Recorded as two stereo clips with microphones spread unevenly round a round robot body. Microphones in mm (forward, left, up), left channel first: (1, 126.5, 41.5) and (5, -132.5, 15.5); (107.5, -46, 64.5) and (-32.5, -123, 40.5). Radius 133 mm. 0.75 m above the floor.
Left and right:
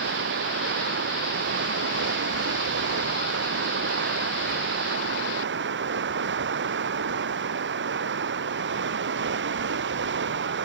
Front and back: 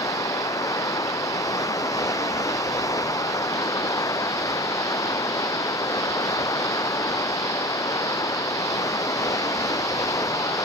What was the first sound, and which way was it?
Running water, 40° right.